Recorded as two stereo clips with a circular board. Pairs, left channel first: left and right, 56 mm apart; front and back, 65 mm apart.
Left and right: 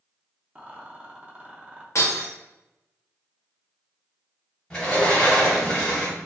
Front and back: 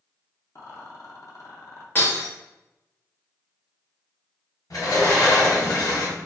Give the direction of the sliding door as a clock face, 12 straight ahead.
11 o'clock.